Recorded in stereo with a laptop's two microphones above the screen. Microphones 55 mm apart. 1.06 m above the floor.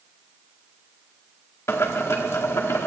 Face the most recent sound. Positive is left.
turn(degrees=60)  # may be behind; listen again after turning